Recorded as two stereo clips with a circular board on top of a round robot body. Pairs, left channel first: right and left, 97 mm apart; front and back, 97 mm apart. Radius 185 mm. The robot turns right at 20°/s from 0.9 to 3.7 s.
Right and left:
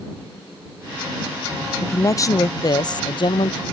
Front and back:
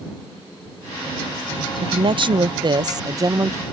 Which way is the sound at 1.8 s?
155° right.